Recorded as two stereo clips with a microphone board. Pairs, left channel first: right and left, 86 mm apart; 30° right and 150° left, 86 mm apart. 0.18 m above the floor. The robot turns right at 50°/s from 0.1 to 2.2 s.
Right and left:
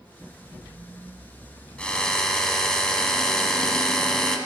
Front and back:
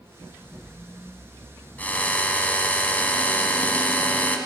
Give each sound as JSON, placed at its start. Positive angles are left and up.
{"t": 1.8, "sound": "a drill", "azimuth_deg": -45, "distance_m": 0.9}